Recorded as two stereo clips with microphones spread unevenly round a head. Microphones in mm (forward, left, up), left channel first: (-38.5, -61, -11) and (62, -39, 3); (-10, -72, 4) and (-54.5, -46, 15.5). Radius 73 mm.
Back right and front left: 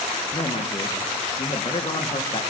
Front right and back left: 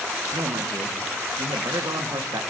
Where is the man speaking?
135° left, 1.8 m.